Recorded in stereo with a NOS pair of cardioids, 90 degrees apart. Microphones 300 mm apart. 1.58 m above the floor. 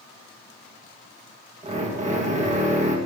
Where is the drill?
25° right, 1.9 m.